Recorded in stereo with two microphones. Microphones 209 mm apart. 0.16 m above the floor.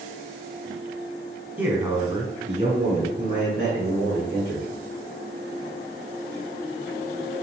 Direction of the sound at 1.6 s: 10° right (ahead or behind).